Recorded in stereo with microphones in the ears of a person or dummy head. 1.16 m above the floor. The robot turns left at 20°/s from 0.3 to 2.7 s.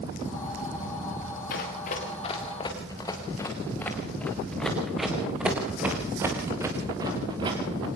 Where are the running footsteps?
55° left (ahead or behind), 5 m; by 7.9 s 30° right (ahead or behind), 5 m.